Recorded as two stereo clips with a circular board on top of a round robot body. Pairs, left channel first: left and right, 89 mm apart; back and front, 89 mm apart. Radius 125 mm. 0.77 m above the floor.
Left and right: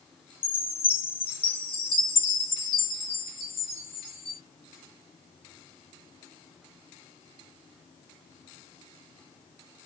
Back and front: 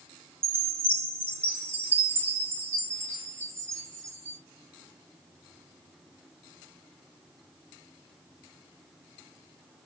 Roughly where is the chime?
Ahead left.